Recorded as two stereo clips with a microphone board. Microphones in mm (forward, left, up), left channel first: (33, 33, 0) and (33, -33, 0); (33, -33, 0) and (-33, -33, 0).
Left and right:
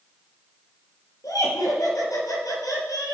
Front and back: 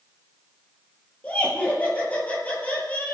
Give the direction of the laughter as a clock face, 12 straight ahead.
10 o'clock.